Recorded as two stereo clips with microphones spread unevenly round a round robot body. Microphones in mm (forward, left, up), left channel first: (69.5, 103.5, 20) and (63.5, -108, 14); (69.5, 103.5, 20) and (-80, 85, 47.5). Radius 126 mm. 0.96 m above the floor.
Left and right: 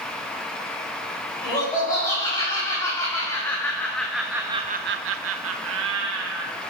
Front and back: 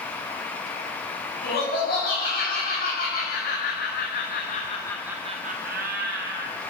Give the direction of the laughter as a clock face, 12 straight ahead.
11 o'clock.